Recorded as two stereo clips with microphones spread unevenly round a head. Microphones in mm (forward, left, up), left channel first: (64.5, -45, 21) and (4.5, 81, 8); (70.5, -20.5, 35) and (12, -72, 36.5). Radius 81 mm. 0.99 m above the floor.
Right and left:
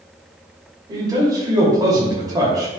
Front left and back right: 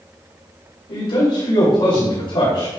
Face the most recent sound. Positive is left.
turn(degrees=55)